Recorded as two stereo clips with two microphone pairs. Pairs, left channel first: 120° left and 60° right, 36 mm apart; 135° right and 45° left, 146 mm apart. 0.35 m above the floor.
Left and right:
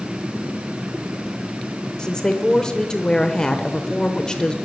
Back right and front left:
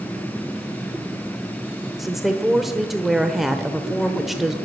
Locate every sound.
2.0 s a woman speaking: 130° left, 0.8 m